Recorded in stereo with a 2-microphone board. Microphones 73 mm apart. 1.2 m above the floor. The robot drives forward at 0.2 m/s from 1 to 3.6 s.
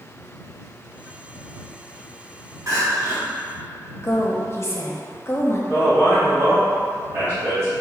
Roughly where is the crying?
Right.